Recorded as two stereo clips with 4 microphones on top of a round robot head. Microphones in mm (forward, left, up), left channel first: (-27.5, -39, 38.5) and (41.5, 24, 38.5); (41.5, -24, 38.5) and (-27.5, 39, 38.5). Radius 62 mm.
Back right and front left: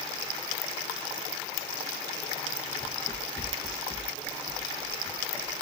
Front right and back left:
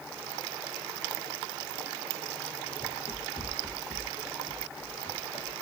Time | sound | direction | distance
2.8 | running footsteps | 85° right | 1.3 m